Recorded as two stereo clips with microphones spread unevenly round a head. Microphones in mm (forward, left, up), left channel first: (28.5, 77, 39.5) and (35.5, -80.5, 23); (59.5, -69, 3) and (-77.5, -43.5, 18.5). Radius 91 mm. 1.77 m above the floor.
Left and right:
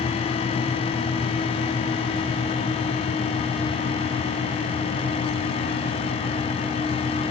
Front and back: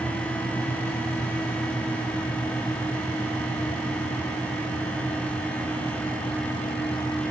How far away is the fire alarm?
No fire alarm in this recording.